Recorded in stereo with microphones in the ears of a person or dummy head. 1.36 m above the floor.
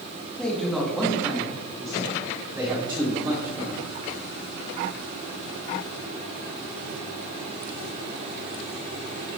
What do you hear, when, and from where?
0.4 s a man speaking: 5° left (ahead or behind), 1.7 m; by 3.8 s 25° right (ahead or behind), 4 m